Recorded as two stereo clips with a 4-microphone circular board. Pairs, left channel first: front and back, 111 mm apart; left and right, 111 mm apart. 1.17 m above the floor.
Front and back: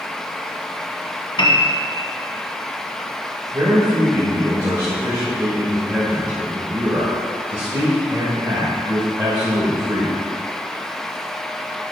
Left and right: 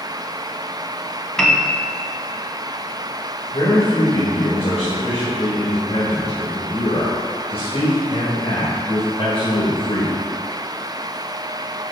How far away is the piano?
About 0.8 m.